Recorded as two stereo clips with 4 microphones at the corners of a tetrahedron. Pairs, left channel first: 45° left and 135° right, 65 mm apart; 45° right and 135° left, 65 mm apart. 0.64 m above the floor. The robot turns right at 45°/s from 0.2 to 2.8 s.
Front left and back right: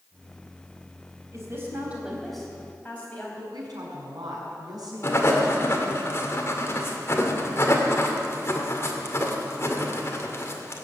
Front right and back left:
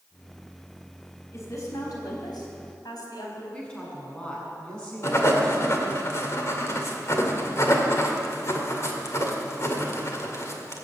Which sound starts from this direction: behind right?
A woman speaking, at 3.5 s.